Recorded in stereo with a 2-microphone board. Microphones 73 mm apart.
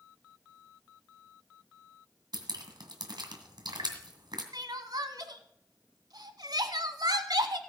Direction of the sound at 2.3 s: 75° right (ahead or behind).